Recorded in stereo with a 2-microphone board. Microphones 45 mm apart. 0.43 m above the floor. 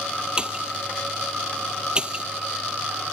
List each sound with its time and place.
0.4 s a pop: 20° right (ahead or behind)